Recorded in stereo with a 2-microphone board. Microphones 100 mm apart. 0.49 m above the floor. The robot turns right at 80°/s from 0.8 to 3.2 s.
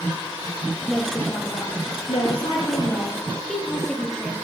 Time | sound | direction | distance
0.9 | a woman speaking | 10° right | 9.5 m